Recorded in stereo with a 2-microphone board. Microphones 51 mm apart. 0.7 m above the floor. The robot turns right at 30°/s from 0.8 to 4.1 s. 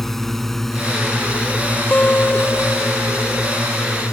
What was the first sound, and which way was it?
A drone, 5° left (ahead or behind).